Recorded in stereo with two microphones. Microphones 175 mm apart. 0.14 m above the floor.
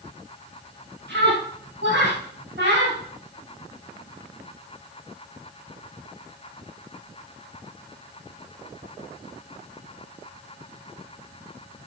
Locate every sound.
1.1 s a scream: 70° right (ahead or behind), 4.5 m; by 3.0 s 60° right (ahead or behind), 6 m